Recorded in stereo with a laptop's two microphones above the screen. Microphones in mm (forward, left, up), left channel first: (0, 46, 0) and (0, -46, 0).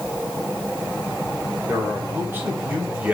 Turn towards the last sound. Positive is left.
turn(degrees=-10)  # may be behind; listen again after turning